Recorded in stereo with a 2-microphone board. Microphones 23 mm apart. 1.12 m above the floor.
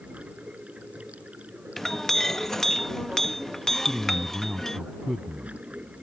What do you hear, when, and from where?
0.0 s running water: 80° right
1.8 s a clink: 15° left (ahead or behind)
3.9 s a man speaking: 20° right (ahead or behind)